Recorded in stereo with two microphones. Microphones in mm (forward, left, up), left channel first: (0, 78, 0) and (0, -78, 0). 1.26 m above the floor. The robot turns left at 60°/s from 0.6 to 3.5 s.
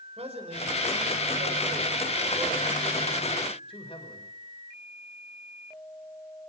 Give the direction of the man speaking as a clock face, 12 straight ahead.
1 o'clock.